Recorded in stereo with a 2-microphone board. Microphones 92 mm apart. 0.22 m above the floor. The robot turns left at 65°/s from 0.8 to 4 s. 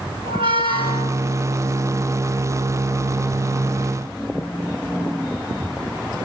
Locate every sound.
0.2 s a squeak: 75° right (ahead or behind), 0.5 m